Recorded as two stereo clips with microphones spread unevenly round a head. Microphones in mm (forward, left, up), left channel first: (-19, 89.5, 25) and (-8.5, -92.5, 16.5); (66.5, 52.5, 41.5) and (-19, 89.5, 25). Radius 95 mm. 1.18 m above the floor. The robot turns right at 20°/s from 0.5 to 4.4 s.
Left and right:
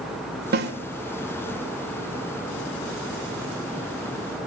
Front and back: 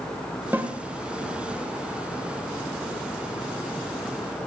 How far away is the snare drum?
About 1.5 m.